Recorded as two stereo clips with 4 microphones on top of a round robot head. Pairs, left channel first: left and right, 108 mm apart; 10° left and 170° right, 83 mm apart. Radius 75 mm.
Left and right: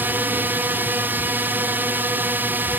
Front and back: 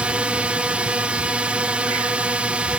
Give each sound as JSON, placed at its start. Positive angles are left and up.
{"t": 0.0, "sound": "a drone", "azimuth_deg": -120}